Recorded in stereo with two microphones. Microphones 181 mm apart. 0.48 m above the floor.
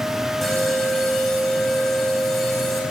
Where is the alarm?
Centre (ahead or behind), 5.5 m.